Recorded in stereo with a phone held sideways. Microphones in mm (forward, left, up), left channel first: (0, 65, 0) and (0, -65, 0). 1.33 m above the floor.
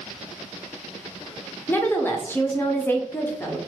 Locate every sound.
1.7 s a woman speaking: 15° left (ahead or behind), 0.7 m